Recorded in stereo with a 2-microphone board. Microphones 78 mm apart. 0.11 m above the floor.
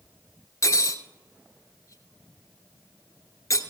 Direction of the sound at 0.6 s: 45° left (ahead or behind).